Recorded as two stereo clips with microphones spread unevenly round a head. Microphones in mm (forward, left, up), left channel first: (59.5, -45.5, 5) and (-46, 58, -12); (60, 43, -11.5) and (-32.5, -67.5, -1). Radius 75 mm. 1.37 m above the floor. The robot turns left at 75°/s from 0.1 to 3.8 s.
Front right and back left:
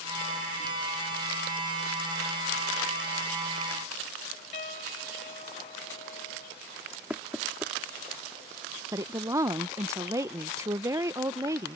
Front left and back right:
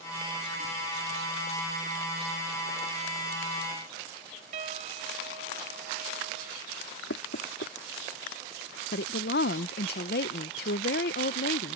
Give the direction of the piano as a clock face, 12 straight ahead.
3 o'clock.